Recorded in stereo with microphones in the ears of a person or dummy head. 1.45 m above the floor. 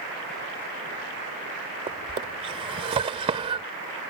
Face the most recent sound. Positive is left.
turn(degrees=-25)  # may be behind; listen again after turning